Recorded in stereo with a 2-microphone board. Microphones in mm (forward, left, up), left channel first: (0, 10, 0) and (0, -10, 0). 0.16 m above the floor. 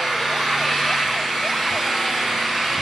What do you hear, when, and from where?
0.0 s an engine running: 5° right (ahead or behind), 3 m